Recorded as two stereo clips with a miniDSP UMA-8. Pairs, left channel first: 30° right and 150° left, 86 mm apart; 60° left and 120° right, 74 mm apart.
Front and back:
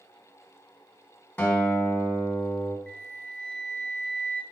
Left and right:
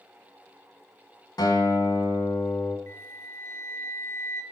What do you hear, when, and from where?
1.4 s a guitar: 35° left, 1.3 m
2.9 s a flute: 45° left, 0.7 m